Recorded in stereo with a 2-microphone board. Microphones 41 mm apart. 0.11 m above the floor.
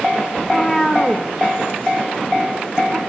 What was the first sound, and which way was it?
A cat meowing, 15° left (ahead or behind).